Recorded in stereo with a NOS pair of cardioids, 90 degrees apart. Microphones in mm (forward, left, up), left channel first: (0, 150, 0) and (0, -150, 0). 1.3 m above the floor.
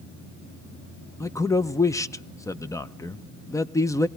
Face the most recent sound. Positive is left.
turn(degrees=10)